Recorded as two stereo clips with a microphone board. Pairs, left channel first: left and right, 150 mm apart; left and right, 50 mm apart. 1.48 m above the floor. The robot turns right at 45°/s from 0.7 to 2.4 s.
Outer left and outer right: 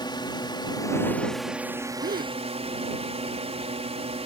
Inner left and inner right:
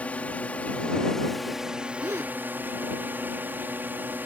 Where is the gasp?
80° right; by 2.4 s 65° right (ahead or behind).